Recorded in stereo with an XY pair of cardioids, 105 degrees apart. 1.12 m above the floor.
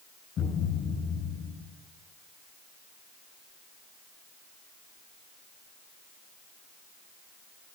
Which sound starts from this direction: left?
A thud, at 0.4 s.